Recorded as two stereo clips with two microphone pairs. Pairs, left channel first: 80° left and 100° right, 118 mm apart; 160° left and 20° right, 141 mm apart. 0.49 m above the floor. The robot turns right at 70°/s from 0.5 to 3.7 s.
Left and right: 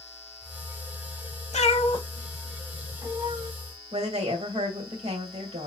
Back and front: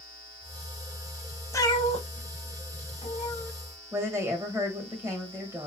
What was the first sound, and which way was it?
A cat meowing, 95° left.